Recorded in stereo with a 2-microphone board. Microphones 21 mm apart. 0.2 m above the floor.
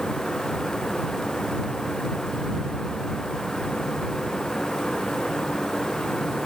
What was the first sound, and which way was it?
Only background noise.